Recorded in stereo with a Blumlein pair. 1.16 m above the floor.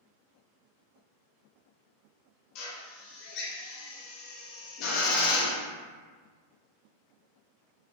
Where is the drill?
40° left, 1.0 m.